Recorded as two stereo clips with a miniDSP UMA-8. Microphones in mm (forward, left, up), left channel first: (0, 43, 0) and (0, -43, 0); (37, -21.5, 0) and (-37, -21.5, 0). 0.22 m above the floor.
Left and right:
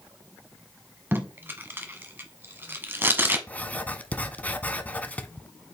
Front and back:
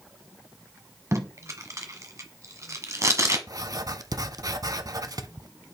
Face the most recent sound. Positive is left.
turn(degrees=160)